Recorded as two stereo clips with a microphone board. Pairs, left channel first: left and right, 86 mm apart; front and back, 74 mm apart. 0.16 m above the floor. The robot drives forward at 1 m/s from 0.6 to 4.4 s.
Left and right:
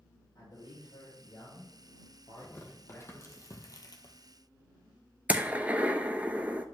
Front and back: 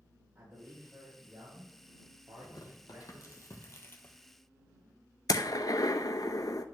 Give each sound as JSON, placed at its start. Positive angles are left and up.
{"t": 0.3, "sound": "a man speaking", "azimuth_deg": 110, "distance_m": 4.0}
{"t": 2.4, "sound": "tearing paper", "azimuth_deg": 25, "distance_m": 2.5}
{"t": 5.3, "sound": "a gunshot", "azimuth_deg": -20, "distance_m": 0.7}